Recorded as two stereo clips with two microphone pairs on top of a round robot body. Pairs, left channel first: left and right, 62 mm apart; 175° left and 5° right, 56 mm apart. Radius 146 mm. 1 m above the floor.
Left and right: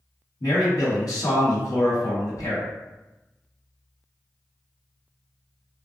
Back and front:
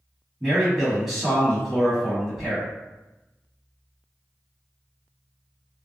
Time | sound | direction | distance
0.4 | a man speaking | 80° left | 1.8 m